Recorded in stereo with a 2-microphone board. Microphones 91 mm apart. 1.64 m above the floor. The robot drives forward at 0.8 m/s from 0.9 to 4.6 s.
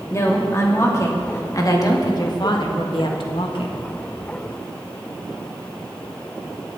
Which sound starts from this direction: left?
A woman speaking, at 0.1 s.